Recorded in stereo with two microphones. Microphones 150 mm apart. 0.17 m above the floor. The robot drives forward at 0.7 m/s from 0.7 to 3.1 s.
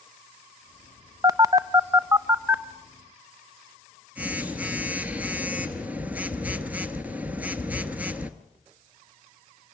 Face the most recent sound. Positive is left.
turn(degrees=-10)  # may be behind; listen again after turning